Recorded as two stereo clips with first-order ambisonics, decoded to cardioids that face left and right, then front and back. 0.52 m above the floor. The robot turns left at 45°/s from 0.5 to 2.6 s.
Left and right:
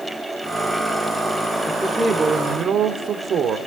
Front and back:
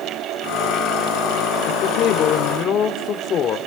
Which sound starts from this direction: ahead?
A man speaking, at 1.6 s.